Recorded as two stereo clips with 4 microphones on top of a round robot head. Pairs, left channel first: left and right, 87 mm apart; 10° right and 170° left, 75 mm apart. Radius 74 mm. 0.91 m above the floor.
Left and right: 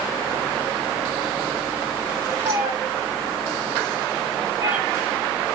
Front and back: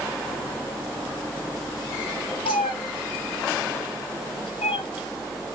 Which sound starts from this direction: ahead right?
A cat meowing, at 2.5 s.